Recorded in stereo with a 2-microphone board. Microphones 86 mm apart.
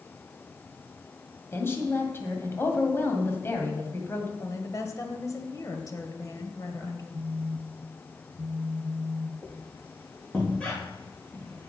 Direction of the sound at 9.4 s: 15° left (ahead or behind).